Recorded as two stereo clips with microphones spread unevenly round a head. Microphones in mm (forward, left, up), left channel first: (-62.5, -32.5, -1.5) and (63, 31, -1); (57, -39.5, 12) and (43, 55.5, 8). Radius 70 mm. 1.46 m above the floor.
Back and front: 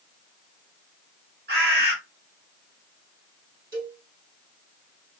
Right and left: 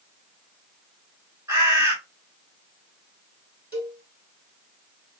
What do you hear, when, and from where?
1.5 s a bird: 35° left, 3 m
3.7 s a cowbell: 20° left, 3 m